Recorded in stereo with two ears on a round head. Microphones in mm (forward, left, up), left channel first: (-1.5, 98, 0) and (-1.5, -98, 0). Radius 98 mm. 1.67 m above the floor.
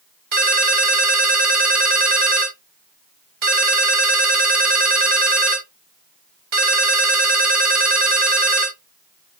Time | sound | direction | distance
0.3 | a ringtone | 45° right (ahead or behind) | 1.5 m